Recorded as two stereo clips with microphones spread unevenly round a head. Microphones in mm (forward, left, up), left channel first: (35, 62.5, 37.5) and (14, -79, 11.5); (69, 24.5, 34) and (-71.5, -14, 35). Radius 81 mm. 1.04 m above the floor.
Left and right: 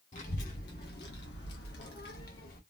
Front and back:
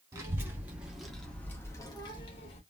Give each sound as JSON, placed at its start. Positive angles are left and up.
{"t": 0.1, "sound": "a child speaking", "azimuth_deg": 125, "distance_m": 1.7}